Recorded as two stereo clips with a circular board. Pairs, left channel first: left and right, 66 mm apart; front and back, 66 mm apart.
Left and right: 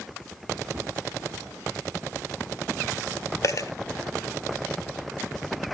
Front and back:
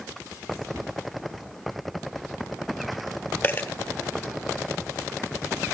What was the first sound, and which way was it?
A cupboard door, 140° right.